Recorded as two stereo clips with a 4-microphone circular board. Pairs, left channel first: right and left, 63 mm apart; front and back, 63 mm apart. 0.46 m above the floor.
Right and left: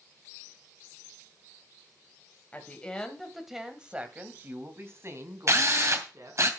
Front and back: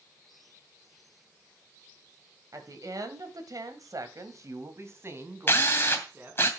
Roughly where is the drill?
Ahead left.